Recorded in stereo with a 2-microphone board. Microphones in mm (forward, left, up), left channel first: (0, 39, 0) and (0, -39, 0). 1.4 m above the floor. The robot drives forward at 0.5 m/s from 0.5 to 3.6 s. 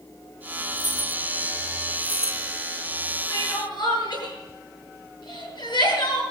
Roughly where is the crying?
Left.